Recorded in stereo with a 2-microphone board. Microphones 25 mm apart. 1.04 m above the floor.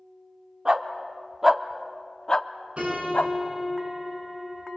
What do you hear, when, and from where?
0.7 s a dog barking: 40° right (ahead or behind), 1.1 m; by 3.3 s 60° left (ahead or behind), 1.0 m
2.8 s a piano: 55° right (ahead or behind), 9.5 m